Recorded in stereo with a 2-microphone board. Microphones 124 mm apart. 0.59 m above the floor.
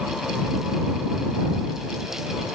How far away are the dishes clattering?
I don't hear dishes clattering.